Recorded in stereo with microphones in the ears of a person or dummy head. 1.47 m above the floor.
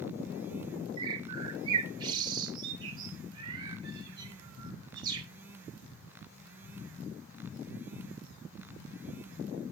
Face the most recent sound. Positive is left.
turn(degrees=-25)  # may be behind; listen again after turning